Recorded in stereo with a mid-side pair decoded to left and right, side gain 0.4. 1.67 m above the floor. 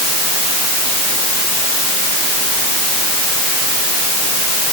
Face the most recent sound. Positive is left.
No sound to turn to.